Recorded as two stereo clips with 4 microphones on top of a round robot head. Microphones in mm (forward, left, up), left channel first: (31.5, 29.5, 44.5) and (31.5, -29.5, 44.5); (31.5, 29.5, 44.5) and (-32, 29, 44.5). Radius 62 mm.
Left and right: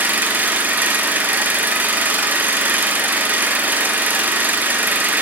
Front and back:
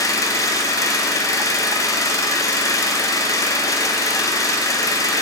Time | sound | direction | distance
0.0 | an engine running | 35° right | 1.1 m